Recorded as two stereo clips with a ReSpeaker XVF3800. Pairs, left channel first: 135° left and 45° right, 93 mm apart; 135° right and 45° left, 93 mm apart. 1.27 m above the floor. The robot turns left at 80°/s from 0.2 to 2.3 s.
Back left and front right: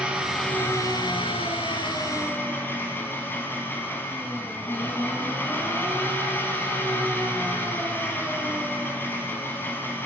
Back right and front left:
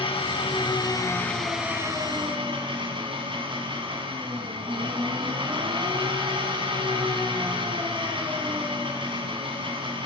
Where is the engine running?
125° right, 4.5 m; by 10.1 s 70° left, 4.5 m.